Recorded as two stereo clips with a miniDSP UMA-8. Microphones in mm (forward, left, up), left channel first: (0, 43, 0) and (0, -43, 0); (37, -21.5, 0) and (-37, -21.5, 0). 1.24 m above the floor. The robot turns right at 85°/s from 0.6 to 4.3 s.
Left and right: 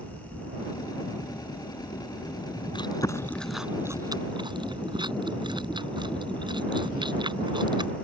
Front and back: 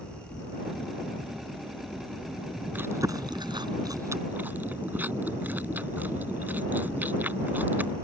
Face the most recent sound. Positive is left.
turn(degrees=-115)